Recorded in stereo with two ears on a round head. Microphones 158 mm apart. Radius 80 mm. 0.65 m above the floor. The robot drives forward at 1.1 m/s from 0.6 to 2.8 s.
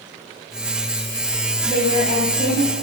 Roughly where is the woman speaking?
Right.